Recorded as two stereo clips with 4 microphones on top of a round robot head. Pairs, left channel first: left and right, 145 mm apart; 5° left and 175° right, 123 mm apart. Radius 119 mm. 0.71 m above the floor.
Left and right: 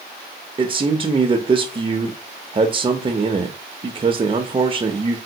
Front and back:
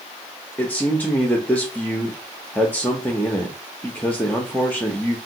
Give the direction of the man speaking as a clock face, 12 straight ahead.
2 o'clock.